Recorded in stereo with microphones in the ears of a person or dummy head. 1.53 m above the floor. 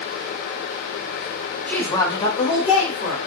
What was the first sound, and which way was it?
A woman speaking, 5° left (ahead or behind).